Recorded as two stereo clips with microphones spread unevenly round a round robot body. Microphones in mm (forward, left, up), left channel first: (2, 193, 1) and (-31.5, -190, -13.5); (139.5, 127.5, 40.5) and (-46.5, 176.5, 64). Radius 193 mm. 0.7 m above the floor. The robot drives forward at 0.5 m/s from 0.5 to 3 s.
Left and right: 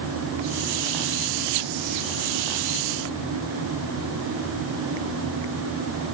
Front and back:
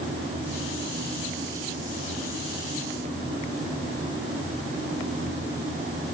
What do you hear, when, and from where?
Only background noise.